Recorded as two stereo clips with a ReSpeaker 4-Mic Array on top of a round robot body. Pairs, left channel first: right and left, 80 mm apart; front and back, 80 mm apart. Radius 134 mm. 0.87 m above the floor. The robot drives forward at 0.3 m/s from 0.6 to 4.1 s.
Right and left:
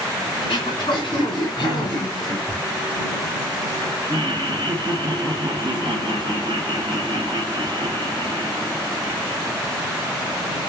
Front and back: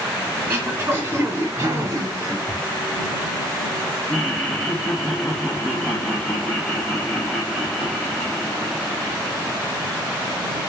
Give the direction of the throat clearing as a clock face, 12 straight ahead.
4 o'clock.